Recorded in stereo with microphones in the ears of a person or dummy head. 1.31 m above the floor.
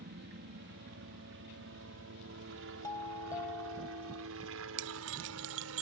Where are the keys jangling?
65° right (ahead or behind).